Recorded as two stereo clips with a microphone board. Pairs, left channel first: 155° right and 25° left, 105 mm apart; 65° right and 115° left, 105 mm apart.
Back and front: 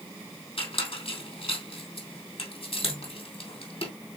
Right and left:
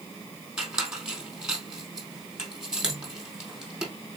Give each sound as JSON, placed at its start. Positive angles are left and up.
{"t": 0.6, "sound": "a squeak", "azimuth_deg": -165, "distance_m": 2.5}